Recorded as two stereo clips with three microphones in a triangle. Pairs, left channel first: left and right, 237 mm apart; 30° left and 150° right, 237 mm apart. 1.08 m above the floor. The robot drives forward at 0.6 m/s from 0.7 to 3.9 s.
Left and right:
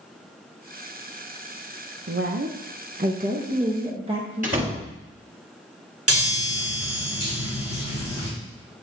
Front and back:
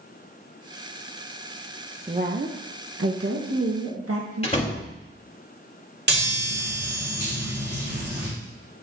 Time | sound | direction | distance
2.1 | a woman speaking | 85° right | 0.5 m
4.4 | a door slam | 35° right | 1.5 m
6.1 | a chime | 105° right | 3 m